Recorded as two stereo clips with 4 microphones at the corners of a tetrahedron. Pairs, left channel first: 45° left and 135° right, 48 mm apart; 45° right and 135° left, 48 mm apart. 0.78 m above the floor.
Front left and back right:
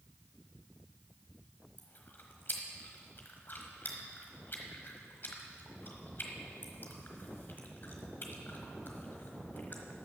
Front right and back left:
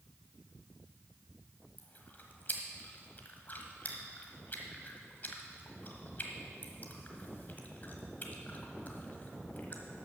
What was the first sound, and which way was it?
Chewing, 5° left.